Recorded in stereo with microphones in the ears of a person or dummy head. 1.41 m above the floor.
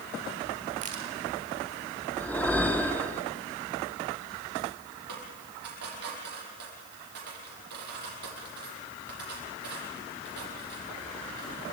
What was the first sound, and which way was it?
A crack, 30° right (ahead or behind).